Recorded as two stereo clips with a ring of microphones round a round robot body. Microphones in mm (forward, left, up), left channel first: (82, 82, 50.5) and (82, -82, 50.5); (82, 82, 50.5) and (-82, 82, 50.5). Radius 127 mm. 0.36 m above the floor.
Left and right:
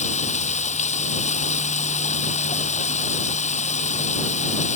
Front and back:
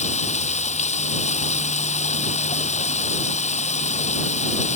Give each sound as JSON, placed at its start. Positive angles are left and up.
{"t": 0.0, "sound": "running water", "azimuth_deg": 45}